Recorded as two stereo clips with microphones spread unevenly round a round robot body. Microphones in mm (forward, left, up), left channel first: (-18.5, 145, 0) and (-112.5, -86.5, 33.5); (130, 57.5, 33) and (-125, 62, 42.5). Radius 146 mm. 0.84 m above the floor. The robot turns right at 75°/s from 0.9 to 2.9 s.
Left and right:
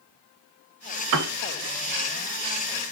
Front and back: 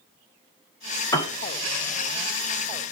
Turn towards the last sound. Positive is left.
turn(degrees=55)